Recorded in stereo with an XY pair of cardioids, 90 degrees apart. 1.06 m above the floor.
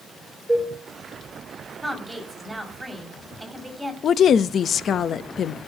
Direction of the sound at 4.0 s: 60° left.